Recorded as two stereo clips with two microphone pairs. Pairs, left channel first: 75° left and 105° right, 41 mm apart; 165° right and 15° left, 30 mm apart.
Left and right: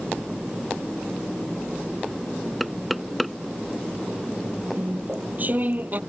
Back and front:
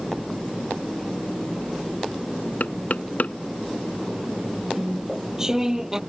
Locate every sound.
2.6 s knocking: 165° left
4.7 s chewing: 60° right